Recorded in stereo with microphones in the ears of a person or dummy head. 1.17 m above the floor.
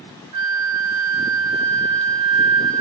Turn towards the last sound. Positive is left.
turn(degrees=-25)  # may be behind; listen again after turning